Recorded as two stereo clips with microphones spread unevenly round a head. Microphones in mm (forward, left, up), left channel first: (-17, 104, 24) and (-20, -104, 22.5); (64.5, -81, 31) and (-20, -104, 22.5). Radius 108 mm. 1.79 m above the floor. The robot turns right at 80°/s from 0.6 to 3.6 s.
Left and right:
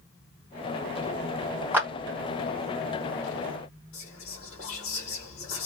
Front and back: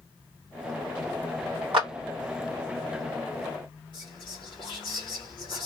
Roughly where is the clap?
Behind.